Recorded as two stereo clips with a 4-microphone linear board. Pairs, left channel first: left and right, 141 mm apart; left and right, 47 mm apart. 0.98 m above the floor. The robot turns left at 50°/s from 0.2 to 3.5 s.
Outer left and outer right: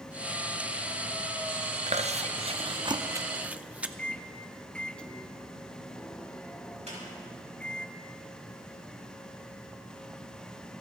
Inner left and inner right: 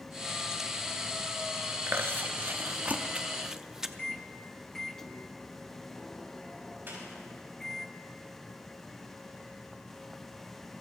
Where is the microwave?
10° left (ahead or behind), 0.5 m.